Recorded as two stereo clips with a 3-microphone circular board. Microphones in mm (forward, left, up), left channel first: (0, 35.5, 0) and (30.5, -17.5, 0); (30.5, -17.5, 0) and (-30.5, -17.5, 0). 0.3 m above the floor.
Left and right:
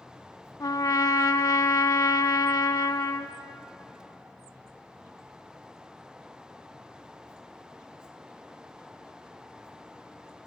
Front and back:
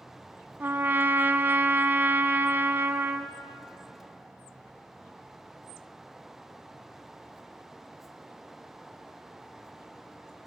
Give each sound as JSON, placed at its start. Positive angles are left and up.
{"t": 0.6, "sound": "a trumpet", "azimuth_deg": 125, "distance_m": 0.5}